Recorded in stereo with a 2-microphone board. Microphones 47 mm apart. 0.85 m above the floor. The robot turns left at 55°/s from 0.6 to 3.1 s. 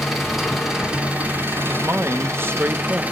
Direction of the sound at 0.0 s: 5° right.